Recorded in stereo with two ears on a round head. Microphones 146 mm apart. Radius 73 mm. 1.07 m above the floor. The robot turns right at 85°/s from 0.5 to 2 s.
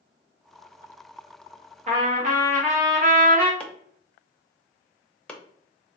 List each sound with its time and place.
1.9 s a trumpet: 45° right (ahead or behind), 1.0 m; by 3.5 s 55° right (ahead or behind), 1.0 m
3.6 s chopping: 5° left (ahead or behind), 0.6 m